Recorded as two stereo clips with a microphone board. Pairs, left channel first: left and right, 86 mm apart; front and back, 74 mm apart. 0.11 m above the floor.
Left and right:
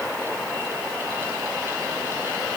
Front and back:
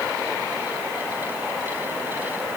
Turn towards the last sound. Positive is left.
No sound to turn to.